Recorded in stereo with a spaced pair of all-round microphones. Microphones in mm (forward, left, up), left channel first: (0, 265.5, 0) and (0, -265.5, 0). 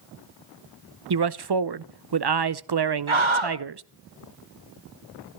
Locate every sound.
1.1 s a man speaking: 50° right (ahead or behind), 0.6 m
3.1 s a scream: 60° right (ahead or behind), 1.3 m